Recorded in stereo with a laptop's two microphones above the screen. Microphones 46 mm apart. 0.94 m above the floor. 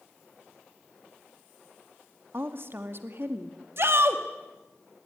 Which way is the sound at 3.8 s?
60° right (ahead or behind).